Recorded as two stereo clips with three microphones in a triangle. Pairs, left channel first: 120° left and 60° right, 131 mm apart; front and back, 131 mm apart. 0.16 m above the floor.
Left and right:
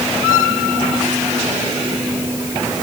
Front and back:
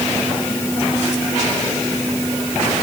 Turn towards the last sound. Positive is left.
No sound to turn to.